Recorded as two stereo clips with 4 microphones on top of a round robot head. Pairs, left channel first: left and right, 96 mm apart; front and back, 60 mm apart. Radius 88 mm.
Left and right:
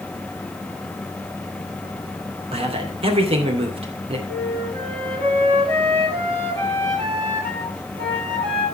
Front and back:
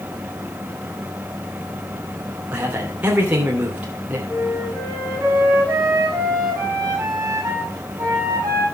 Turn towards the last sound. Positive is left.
turn(degrees=-120)